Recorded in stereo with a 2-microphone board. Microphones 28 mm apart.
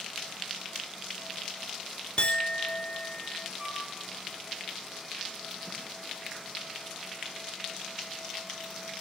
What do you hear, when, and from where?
2.2 s a clink: 45° left (ahead or behind), 0.6 m
3.6 s a flute: 10° right (ahead or behind), 5.5 m